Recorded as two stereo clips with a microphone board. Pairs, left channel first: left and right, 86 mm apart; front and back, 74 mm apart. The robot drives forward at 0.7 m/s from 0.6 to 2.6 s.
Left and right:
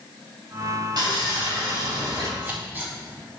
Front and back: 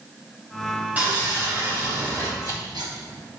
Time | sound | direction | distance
1.0 | sawing | 110° right | 3 m
2.4 | scissors | 155° right | 2.5 m